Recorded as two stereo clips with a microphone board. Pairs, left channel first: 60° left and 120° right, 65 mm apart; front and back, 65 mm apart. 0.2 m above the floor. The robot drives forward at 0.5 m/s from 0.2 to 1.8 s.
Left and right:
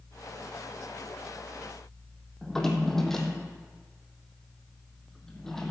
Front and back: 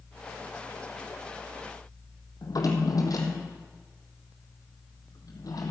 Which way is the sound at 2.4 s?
25° right.